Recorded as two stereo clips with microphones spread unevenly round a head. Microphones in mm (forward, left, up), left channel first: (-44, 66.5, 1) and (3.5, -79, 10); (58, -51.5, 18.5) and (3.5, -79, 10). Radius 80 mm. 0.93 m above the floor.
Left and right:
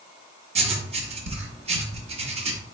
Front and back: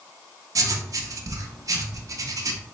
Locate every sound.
0.6 s writing: 120° right, 0.8 m